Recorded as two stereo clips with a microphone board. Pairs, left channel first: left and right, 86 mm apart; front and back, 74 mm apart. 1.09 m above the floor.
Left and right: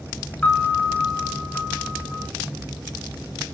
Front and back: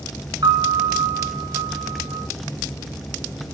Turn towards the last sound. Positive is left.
turn(degrees=165)